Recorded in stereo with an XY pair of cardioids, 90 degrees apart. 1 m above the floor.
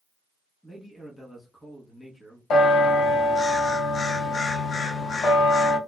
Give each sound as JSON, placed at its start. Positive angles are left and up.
{"t": 0.6, "sound": "a man speaking", "azimuth_deg": 15, "distance_m": 1.2}
{"t": 2.5, "sound": "a bell", "azimuth_deg": 70, "distance_m": 0.6}